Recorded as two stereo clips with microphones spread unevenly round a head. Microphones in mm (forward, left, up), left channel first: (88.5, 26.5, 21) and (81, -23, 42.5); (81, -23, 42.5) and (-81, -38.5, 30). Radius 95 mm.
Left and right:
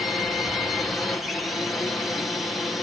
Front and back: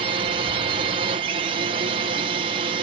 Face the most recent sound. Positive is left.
turn(degrees=150)